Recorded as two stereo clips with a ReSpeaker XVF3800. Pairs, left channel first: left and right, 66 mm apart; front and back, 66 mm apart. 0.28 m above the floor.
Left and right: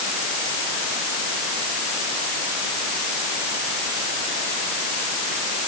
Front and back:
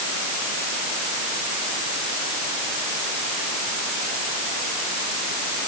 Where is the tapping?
No tapping in this recording.